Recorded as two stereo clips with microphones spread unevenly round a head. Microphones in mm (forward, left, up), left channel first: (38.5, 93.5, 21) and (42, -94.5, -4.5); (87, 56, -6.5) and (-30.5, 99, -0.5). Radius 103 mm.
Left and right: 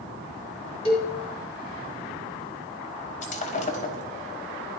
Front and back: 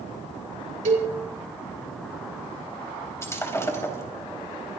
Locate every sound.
0.8 s a cowbell: 155° left, 3.5 m
3.2 s breaking glass: 45° left, 4 m